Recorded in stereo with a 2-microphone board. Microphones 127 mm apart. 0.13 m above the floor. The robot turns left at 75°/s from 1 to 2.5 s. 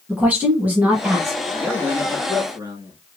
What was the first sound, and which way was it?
A woman speaking, 15° right (ahead or behind).